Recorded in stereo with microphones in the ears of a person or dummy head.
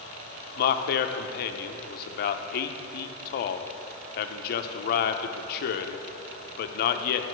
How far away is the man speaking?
About 0.7 m.